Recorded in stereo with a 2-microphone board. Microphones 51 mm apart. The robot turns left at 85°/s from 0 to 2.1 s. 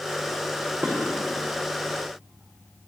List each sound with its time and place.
0.8 s dishes clattering: 20° right (ahead or behind), 5.5 m; by 0.9 s 10° right (ahead or behind), 5.5 m